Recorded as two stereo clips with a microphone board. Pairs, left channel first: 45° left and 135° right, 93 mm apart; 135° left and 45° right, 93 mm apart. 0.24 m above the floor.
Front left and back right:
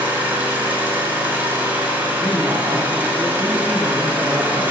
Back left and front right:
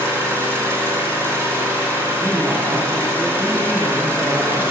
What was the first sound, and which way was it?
An engine running, 85° right.